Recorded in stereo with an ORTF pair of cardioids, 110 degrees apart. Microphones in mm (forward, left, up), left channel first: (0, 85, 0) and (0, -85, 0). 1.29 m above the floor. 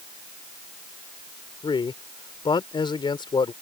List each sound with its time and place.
1.6 s a man speaking: 30° left